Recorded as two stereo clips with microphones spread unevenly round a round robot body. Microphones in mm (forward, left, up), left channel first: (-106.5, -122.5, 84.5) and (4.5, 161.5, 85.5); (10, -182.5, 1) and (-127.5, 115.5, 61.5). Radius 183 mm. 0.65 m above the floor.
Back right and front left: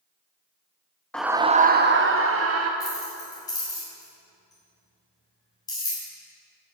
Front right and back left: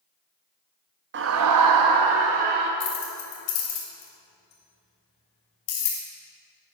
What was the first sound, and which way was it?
A scream, 165° left.